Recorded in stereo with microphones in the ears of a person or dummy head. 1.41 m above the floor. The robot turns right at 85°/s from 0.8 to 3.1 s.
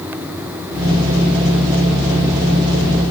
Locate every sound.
Only background noise.